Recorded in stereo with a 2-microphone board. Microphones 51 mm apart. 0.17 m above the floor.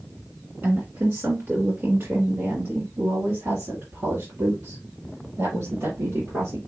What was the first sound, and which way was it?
A woman speaking, 50° right (ahead or behind).